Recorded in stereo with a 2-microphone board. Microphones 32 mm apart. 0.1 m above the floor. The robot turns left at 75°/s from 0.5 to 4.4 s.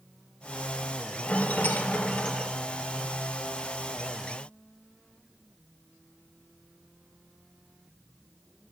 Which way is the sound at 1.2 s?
120° left.